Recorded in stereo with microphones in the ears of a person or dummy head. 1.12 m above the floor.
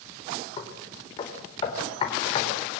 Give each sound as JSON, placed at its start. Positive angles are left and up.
{"t": 0.6, "sound": "knocking", "side_deg": 30, "distance_m": 3.5}